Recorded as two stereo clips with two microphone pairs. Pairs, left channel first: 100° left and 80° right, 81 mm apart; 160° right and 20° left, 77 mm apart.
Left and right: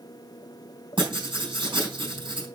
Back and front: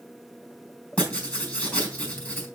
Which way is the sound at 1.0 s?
85° right.